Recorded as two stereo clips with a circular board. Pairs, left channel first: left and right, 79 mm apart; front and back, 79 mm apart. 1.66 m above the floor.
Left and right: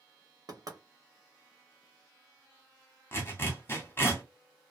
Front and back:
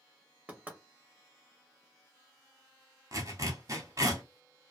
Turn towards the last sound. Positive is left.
turn(degrees=145)